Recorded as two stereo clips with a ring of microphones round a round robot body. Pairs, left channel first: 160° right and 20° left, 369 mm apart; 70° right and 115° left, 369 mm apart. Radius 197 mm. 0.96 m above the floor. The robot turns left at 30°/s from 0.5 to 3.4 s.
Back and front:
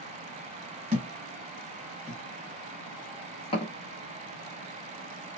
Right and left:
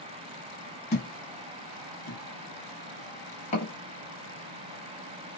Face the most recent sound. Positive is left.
turn(degrees=-100)